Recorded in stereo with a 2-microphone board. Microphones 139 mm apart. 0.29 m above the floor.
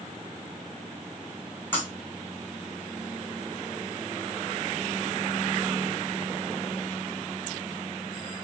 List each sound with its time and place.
1.7 s breaking glass: 15° left (ahead or behind), 5 m